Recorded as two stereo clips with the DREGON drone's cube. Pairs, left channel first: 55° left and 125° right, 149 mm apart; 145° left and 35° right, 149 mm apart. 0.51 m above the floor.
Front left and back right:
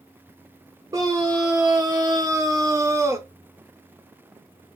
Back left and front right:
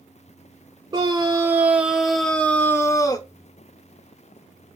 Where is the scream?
75° right, 1.3 m; by 3.3 s straight behind, 1.2 m.